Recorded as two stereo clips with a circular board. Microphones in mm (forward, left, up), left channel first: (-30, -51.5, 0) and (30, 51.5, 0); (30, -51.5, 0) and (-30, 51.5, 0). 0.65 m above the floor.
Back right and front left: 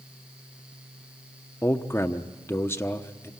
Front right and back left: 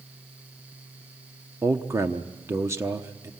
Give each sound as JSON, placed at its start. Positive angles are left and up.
{"t": 1.6, "sound": "a man speaking", "azimuth_deg": 180, "distance_m": 0.9}